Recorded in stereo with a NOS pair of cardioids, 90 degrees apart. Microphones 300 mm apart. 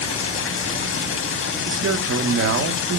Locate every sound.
0.0 s running water: 45° left, 0.9 m
1.7 s a man speaking: 50° right, 1.5 m